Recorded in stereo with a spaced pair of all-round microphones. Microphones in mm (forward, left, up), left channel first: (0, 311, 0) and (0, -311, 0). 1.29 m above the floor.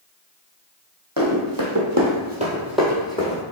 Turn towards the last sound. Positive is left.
turn(degrees=10)  # may be behind; listen again after turning